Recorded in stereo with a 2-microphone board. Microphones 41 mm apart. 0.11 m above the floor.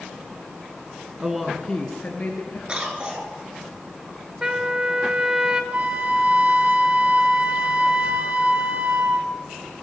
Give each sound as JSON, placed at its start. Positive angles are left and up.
{"t": 1.2, "sound": "a woman speaking", "side_deg": -20, "distance_m": 1.1}
{"t": 2.7, "sound": "a cough", "side_deg": -25, "distance_m": 1.5}
{"t": 4.4, "sound": "a trumpet", "side_deg": -15, "distance_m": 0.7}
{"t": 5.7, "sound": "a flute", "side_deg": -35, "distance_m": 0.6}